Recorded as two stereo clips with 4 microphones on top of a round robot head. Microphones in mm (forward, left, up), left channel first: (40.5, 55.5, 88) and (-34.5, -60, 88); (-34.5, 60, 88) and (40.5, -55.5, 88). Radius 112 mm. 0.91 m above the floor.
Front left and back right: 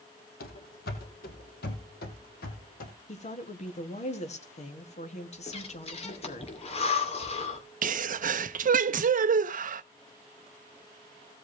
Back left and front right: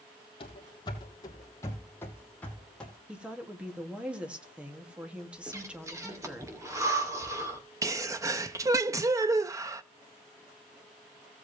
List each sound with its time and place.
0.4 s running footsteps: 70° left, 2 m; by 2.9 s 40° left, 3 m
3.1 s a woman speaking: 25° left, 2 m
5.5 s breathing: 10° left, 2.5 m
7.8 s a sneeze: 125° right, 0.5 m